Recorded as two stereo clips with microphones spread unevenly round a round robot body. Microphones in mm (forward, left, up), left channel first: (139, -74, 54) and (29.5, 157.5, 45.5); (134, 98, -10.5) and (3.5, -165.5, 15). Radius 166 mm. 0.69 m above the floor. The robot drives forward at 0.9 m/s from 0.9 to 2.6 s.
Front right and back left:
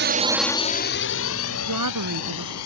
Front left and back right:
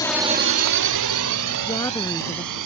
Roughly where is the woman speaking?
Behind left.